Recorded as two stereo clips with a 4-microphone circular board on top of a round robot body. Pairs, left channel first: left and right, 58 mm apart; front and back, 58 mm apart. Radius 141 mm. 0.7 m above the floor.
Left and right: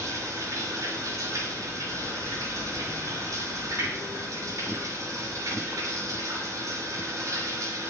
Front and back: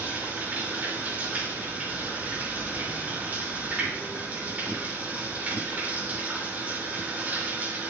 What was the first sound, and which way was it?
Running water, 115° right.